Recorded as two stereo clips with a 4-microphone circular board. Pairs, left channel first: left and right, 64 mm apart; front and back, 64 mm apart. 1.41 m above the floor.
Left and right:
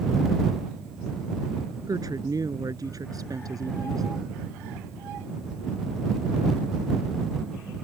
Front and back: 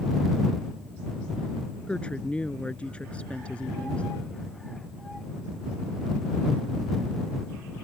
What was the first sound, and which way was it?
A woman speaking, 70° right.